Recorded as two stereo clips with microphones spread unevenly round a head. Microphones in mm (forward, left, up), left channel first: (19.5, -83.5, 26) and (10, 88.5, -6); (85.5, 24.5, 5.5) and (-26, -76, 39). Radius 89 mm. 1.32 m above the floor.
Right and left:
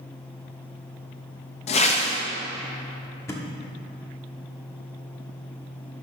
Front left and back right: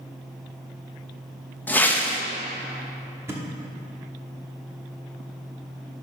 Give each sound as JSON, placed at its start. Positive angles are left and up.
{"t": 1.7, "sound": "a whoosh", "azimuth_deg": -40, "distance_m": 0.9}
{"t": 3.3, "sound": "a thud", "azimuth_deg": -120, "distance_m": 0.9}